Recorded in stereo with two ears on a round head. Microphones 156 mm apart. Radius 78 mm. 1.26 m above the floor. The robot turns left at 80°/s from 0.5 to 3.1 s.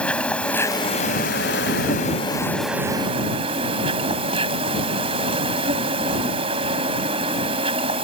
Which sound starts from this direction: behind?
An insect, at 0.0 s.